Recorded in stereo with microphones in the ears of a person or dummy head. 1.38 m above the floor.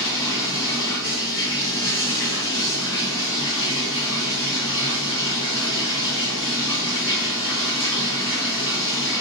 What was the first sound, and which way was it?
Running water, 15° left (ahead or behind).